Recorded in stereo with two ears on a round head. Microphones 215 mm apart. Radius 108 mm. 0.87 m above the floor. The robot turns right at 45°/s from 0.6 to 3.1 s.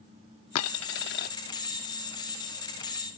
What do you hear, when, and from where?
0.6 s a dropped coin: 105° left; by 1.3 s 140° left